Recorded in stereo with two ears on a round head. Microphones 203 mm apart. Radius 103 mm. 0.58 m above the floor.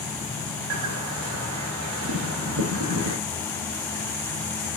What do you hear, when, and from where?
0.7 s a bird: 65° right (ahead or behind), 0.5 m